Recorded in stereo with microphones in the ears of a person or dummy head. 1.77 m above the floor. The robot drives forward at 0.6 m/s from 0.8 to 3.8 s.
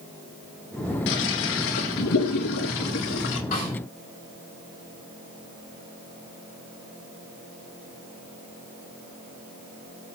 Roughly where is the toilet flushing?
Left.